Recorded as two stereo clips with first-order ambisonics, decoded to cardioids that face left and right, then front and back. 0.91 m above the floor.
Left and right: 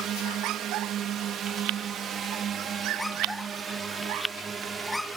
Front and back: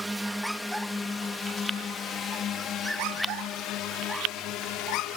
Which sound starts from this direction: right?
A drone, at 0.0 s.